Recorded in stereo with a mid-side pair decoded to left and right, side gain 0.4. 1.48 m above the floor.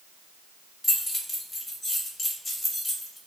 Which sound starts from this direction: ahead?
Keys jangling, at 0.8 s.